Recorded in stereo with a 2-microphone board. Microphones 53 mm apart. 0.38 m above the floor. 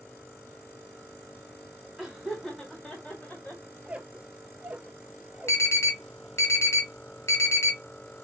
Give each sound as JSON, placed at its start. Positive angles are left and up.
{"t": 2.0, "sound": "laughter", "side_deg": -10, "distance_m": 1.6}
{"t": 3.8, "sound": "a squeak", "side_deg": -20, "distance_m": 0.5}
{"t": 5.5, "sound": "an alarm", "side_deg": 55, "distance_m": 1.1}